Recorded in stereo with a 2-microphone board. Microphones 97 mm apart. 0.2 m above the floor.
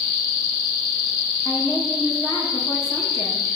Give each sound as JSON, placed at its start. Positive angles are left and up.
{"t": 1.4, "sound": "a woman speaking", "side_deg": 40, "distance_m": 5.0}